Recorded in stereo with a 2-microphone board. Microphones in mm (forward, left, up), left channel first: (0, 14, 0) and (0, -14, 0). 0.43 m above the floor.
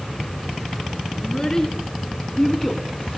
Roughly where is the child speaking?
Left.